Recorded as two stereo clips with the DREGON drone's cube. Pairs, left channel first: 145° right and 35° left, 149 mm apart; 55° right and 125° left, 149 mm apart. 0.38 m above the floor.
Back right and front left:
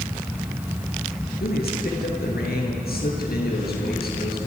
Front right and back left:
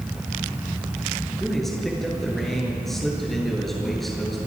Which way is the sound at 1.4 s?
145° right.